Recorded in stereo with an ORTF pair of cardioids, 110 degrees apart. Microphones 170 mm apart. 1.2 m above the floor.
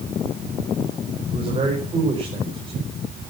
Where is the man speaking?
30° right, 5 m.